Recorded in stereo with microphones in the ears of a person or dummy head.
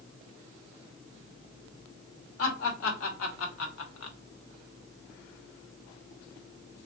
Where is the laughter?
80° left, 1.7 m; by 4.2 s 75° left (ahead or behind), 0.8 m.